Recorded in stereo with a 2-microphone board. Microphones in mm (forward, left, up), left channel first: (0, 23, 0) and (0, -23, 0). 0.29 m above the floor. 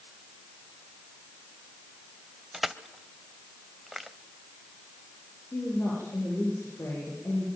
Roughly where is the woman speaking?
Left.